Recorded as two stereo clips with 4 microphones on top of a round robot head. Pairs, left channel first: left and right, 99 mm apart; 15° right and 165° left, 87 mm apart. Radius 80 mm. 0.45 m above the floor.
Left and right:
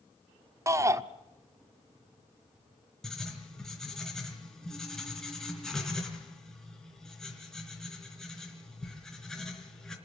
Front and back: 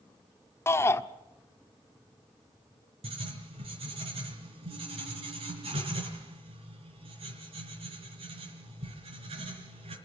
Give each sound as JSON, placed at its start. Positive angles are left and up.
{"t": 0.7, "sound": "a shout", "azimuth_deg": -50, "distance_m": 1.0}
{"t": 3.0, "sound": "writing", "azimuth_deg": 175, "distance_m": 4.0}